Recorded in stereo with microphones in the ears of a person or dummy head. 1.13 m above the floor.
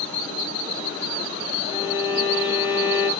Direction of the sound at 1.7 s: 35° left (ahead or behind).